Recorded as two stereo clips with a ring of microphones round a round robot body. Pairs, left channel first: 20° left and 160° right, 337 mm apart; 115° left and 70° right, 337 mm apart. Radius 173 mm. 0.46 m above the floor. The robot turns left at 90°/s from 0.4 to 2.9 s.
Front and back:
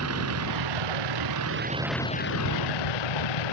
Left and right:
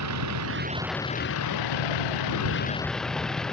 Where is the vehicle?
110° right; by 3.5 s 25° left.